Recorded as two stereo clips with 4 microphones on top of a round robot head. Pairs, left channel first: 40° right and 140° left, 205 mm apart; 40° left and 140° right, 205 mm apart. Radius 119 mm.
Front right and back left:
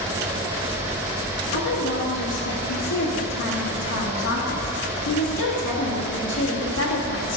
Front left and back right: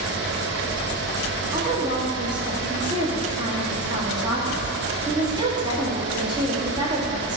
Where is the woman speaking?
70° right, 2.0 m.